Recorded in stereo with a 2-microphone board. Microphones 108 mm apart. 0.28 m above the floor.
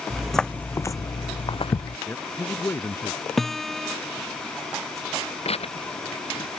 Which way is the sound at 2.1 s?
25° left (ahead or behind).